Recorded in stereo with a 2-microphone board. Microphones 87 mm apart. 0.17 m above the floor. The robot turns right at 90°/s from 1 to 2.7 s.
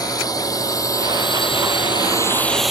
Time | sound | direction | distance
0.0 | a drone | 45° left (ahead or behind) | ?